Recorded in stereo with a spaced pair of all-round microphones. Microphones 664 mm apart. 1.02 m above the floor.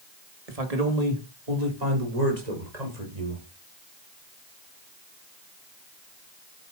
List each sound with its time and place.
0.5 s a man speaking: 60° right (ahead or behind), 1.7 m; by 3.4 s 75° right (ahead or behind), 5.5 m